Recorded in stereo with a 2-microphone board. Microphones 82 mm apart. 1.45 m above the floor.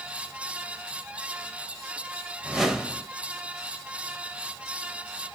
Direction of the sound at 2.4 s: 5° right (ahead or behind).